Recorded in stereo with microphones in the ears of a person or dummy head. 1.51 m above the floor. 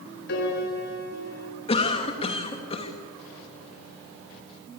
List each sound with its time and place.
0.3 s a piano: 60° left (ahead or behind), 4 m
1.7 s a cough: 30° left (ahead or behind), 2.5 m